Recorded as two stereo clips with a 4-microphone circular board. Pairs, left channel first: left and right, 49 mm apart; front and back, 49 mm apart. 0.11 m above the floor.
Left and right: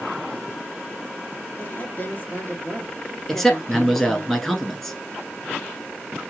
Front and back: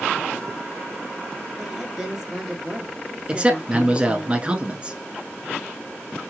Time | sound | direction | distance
1.6 | a woman speaking | 95° left | 1.7 m
3.3 | a man speaking | 165° left | 1.1 m